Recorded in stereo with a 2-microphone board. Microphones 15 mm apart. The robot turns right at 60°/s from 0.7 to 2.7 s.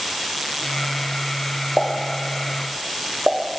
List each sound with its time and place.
1.8 s a pop: 55° right (ahead or behind), 0.8 m; by 3.4 s 20° right (ahead or behind), 0.8 m